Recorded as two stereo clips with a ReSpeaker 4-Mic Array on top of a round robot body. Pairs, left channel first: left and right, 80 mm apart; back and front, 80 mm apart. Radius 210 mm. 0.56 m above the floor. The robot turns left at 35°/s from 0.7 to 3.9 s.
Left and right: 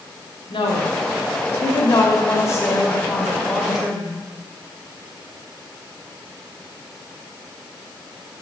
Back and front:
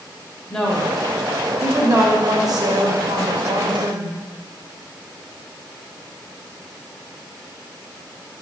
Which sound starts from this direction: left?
A woman speaking, at 0.5 s.